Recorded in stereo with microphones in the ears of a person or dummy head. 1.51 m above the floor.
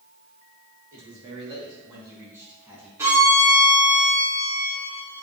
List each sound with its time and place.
0.9 s a man speaking: 40° right (ahead or behind), 1.9 m; by 2.9 s 5° right (ahead or behind), 3 m
3.0 s a violin: 10° right (ahead or behind), 2.5 m